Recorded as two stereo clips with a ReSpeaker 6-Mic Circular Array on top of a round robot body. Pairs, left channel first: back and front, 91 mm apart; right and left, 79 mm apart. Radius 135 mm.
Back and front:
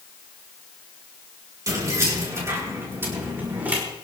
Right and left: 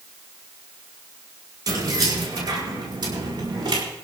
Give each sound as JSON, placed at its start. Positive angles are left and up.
{"t": 1.7, "sound": "keys jangling", "azimuth_deg": 50, "distance_m": 6.0}